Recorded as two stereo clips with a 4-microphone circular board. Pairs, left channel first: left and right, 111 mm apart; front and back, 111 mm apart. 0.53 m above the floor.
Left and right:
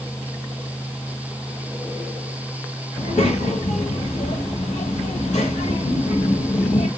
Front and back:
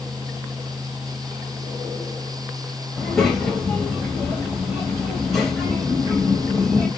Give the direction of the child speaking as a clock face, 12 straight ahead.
9 o'clock.